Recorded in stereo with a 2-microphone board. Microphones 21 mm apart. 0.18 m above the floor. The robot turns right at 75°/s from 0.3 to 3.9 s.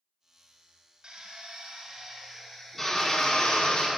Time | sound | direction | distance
1.0 | a drill | 110° right | 1.5 m